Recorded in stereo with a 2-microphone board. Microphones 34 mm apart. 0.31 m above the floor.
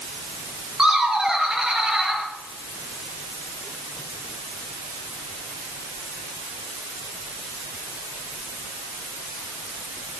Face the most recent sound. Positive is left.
turn(degrees=-15)  # may be behind; listen again after turning